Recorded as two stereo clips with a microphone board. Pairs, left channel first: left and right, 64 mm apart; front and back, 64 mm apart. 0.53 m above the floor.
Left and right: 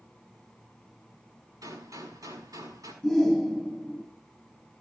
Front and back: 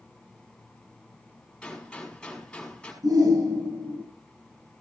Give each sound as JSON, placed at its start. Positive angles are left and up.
{"t": 1.6, "sound": "a gunshot", "azimuth_deg": -75, "distance_m": 5.5}
{"t": 3.0, "sound": "a shout", "azimuth_deg": -175, "distance_m": 7.0}